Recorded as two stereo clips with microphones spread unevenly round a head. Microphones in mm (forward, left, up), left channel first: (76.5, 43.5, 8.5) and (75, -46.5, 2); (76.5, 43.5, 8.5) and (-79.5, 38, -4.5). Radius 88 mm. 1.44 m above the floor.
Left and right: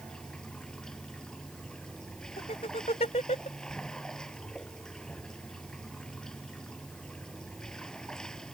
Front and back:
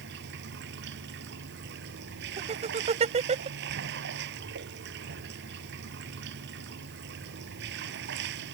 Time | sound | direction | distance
0.0 | running water | 175° left | ?
2.4 | laughter | 135° left | ?